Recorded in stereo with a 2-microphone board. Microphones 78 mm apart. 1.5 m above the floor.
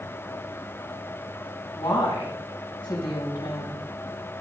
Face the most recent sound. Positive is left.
turn(degrees=90)